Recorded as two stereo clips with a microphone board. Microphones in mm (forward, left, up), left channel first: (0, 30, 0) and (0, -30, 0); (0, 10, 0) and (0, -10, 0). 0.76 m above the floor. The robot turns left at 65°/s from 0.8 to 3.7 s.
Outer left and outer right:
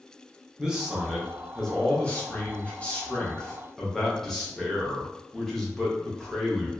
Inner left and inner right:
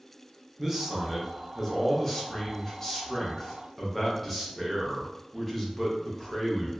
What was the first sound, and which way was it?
A man speaking, 10° right (ahead or behind).